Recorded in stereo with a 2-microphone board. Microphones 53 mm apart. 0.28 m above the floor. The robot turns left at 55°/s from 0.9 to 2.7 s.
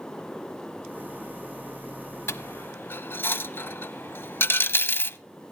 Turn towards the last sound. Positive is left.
turn(degrees=45)  # may be behind; listen again after turning